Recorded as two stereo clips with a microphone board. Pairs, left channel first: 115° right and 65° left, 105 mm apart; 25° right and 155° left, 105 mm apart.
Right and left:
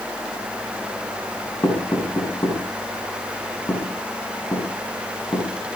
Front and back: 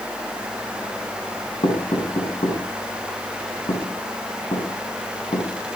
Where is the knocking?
55° right, 5.5 m.